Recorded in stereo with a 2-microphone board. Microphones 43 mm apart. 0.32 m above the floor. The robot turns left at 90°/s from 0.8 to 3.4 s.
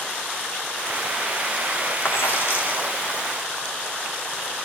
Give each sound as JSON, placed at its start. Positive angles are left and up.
{"t": 2.0, "sound": "a dropped coin", "azimuth_deg": 110, "distance_m": 0.7}